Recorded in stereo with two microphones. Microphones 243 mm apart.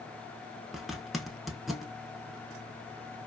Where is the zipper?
Centre (ahead or behind), 0.6 m.